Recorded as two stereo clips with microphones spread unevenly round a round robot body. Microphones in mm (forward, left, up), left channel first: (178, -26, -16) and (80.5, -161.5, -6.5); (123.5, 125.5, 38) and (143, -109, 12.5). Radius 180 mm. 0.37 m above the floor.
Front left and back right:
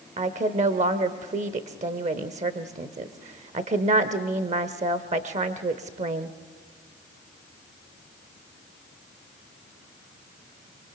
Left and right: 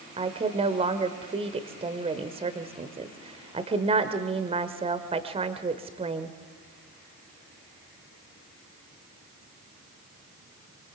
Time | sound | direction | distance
0.2 | a woman speaking | 125° right | 1.0 m